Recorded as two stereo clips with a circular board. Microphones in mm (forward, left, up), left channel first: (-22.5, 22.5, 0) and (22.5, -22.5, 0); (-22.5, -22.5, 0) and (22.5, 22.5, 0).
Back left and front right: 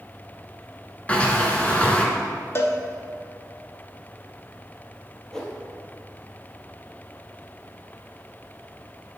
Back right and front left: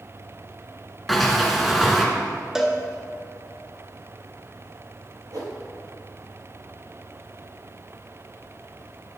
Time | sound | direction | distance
1.1 | a sliding door | 140° left | 1.0 m
2.5 | a cowbell | 125° left | 0.7 m
5.3 | a whoosh | 55° left | 1.3 m